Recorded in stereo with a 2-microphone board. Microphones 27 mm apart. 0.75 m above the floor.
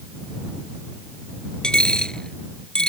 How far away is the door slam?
I don't hear a door slam.